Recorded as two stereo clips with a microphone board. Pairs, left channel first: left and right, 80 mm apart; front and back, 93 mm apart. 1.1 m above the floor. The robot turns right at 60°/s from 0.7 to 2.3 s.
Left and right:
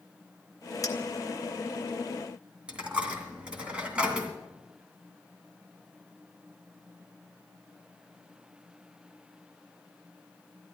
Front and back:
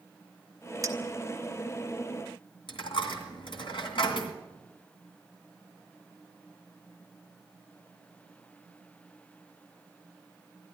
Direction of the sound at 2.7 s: 15° right.